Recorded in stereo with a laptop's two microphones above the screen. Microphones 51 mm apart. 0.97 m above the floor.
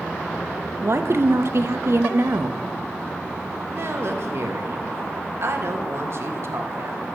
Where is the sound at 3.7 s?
55° right (ahead or behind), 1.3 m.